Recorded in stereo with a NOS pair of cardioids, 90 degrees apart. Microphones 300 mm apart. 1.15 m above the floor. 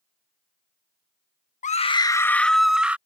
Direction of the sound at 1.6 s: 25° left.